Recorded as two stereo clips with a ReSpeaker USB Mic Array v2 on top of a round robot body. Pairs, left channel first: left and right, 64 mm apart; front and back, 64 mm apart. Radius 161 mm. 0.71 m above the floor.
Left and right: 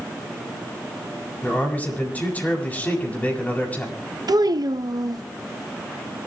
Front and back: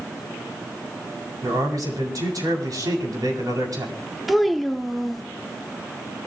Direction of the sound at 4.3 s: 90° right.